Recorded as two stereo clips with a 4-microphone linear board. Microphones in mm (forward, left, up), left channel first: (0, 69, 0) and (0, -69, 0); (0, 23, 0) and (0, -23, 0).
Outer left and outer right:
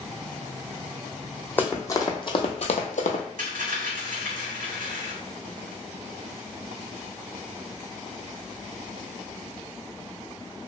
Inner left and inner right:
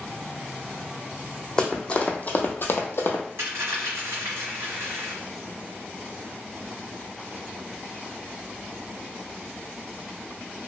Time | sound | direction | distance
1.6 | running footsteps | 15° left (ahead or behind) | 0.8 m
3.4 | a dropped coin | 75° right (ahead or behind) | 1.1 m